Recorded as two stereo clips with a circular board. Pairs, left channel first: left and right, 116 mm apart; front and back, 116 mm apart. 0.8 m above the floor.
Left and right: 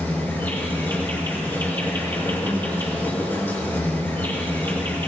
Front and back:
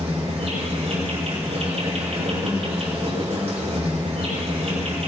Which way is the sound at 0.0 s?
160° left.